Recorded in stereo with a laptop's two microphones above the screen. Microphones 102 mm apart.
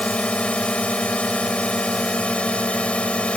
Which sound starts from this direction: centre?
A drone, at 0.0 s.